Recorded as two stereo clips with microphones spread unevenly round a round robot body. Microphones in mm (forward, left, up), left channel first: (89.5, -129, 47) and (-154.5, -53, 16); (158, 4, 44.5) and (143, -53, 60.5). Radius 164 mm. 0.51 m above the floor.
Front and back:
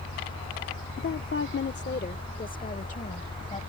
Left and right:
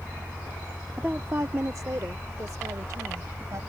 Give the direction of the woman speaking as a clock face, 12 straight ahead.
1 o'clock.